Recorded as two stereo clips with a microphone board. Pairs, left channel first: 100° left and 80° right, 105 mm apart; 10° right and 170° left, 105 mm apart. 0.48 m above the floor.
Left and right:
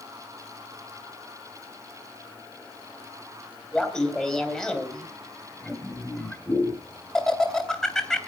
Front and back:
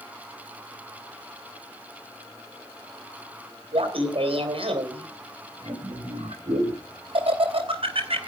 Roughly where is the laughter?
Behind.